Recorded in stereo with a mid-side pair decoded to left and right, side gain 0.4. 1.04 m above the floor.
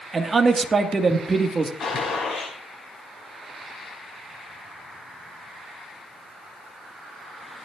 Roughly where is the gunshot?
Ahead left.